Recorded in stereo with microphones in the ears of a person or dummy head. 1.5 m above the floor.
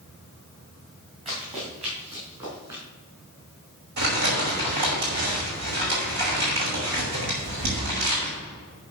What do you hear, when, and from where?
1.2 s running footsteps: 35° right (ahead or behind), 6 m; by 2.8 s 25° right (ahead or behind), 8 m
4.0 s crumpling: 55° right (ahead or behind), 5.5 m